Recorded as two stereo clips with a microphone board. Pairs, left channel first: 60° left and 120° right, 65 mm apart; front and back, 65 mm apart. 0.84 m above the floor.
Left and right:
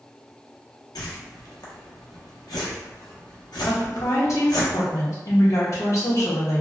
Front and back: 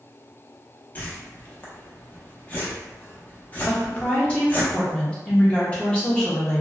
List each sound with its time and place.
0.9 s a whoosh: 65° left, 0.6 m
3.7 s a woman speaking: 70° left, 0.9 m